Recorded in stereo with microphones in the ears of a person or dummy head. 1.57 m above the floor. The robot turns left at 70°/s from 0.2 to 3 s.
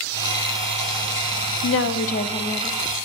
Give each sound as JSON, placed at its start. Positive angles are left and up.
{"t": 1.6, "sound": "a woman speaking", "azimuth_deg": 75, "distance_m": 0.7}